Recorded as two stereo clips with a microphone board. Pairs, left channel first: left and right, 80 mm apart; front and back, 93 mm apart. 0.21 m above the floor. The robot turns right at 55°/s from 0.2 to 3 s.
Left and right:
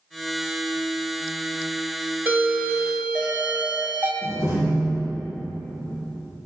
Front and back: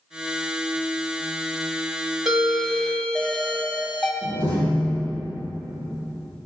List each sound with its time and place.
2.2 s a doorbell: 100° right, 1.9 m; by 4.1 s 60° right, 1.9 m
4.2 s a door slam: 45° left, 5 m